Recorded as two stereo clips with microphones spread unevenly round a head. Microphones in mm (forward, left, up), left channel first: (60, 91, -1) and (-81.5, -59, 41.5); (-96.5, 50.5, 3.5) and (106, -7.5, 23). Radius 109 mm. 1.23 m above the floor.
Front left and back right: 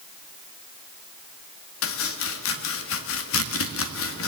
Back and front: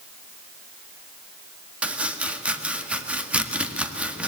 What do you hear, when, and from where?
1.8 s chopping: 70° left, 1.8 m